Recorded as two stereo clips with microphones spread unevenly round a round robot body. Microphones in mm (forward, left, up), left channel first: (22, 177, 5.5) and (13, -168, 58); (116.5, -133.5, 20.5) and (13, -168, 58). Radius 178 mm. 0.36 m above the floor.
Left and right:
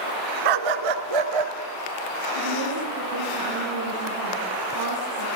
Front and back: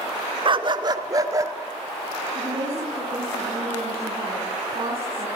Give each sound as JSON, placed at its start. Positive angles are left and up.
{"t": 0.5, "sound": "a dog barking", "azimuth_deg": -120, "distance_m": 1.4}
{"t": 2.4, "sound": "a woman speaking", "azimuth_deg": -125, "distance_m": 6.0}